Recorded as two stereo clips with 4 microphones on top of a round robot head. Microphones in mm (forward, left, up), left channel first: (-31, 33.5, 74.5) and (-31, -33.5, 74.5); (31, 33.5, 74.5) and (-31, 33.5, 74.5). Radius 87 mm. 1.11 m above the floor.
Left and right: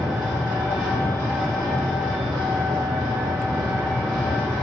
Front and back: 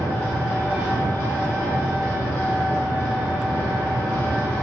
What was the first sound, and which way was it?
An engine running, 65° right.